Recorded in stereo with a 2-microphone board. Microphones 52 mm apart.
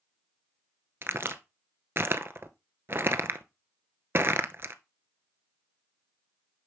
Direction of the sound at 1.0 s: 45° right (ahead or behind).